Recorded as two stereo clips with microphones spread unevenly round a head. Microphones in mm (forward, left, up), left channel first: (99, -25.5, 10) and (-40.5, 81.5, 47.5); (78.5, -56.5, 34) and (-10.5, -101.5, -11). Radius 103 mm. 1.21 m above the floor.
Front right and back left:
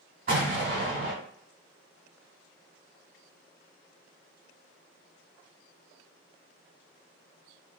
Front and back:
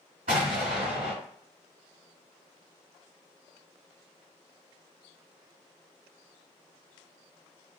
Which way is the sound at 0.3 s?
145° left.